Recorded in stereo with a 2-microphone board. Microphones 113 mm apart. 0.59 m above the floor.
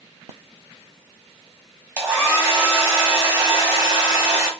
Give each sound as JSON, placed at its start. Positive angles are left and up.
{"t": 2.0, "sound": "a hair dryer", "side_deg": -20, "distance_m": 1.3}